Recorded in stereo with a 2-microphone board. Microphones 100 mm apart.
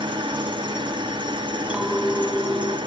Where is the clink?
10° right (ahead or behind), 2.5 m.